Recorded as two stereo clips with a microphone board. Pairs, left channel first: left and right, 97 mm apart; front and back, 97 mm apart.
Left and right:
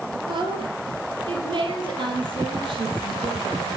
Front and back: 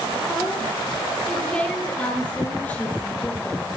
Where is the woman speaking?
85° right, 3 m; by 3.8 s 70° right, 5 m.